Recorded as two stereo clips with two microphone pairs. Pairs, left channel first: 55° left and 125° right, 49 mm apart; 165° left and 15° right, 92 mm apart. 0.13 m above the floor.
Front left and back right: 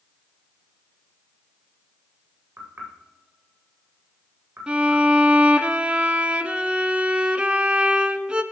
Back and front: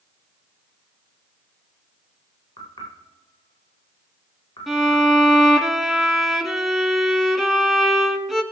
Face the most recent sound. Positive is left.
turn(degrees=-105)